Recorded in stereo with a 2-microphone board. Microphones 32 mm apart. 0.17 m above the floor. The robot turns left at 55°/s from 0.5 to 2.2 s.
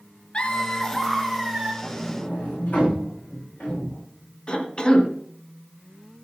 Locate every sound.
0.3 s laughter: 35° left, 3 m; by 1.7 s 30° right, 3 m
1.8 s a sliding door: 30° left (ahead or behind), 9.5 m; by 4.0 s 50° left (ahead or behind), 9.5 m
4.5 s a cough: 25° left (ahead or behind), 1.9 m